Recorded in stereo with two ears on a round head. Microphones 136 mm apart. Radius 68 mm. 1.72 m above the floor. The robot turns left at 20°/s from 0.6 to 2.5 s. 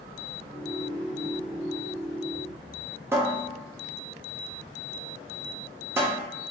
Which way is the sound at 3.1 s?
15° right (ahead or behind).